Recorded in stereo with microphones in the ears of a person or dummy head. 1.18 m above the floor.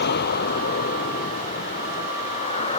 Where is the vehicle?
55° left (ahead or behind); by 2.8 s 35° left (ahead or behind).